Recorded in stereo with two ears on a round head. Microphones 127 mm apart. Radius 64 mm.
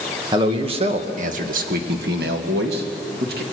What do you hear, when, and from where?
0.3 s a man speaking: 30° right (ahead or behind), 1.7 m; by 3.4 s 75° right (ahead or behind), 2.5 m